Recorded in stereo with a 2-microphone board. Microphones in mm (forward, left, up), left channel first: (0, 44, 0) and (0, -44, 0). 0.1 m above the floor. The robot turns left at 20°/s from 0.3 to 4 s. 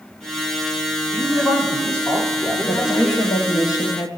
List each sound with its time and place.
1.1 s a man speaking: 35° left, 6 m; by 3.3 s 10° right, 6 m
2.7 s a woman speaking: 50° left (ahead or behind), 2.5 m